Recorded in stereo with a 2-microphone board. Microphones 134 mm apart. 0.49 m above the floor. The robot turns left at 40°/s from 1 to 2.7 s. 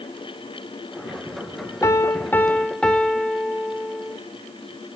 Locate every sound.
1.8 s a piano: 45° left, 1.1 m; by 4.2 s 10° left, 1.1 m